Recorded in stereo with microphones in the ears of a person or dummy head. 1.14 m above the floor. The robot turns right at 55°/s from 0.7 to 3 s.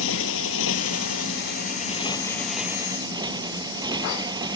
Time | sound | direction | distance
0.0 | a motorcycle | 80° left | ?